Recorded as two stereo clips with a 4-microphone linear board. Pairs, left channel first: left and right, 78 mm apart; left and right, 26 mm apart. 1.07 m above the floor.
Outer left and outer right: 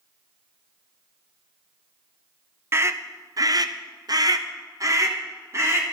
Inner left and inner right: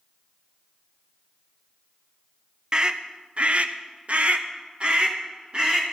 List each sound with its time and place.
2.7 s a scream: 35° right (ahead or behind), 0.7 m